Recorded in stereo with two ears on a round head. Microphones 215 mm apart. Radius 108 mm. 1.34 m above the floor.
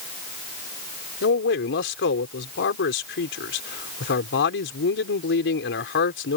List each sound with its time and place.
1.2 s a man speaking: 55° left (ahead or behind)